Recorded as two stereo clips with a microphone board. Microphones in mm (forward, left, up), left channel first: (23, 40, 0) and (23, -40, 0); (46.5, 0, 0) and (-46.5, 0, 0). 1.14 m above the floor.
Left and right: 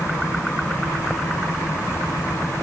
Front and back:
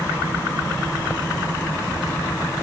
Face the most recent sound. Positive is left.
No sound to turn to.